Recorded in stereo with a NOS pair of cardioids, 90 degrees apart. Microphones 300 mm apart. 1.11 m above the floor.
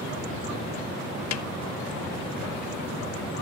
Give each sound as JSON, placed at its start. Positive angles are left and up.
{"t": 1.3, "sound": "a snare drum", "azimuth_deg": 65, "distance_m": 1.1}